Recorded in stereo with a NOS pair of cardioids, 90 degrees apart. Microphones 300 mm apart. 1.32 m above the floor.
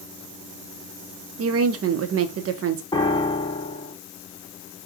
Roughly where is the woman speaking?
Ahead right.